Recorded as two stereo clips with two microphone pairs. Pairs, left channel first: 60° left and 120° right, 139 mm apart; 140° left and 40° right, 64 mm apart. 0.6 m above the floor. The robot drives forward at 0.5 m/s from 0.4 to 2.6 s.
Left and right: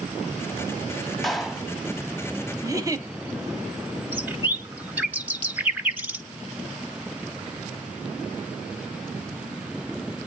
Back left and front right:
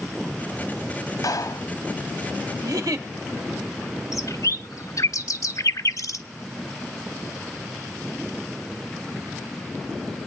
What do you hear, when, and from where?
1.2 s a clap: 150° left, 1.1 m; by 1.7 s 155° left, 1.2 m
2.6 s a giggle: 55° right, 1.0 m
4.1 s a bird: 165° left, 1.1 m